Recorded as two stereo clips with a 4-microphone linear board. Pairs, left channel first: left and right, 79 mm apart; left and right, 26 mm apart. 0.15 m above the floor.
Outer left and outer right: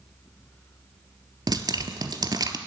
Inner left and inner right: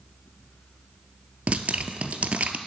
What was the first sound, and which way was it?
Dripping, 60° right (ahead or behind).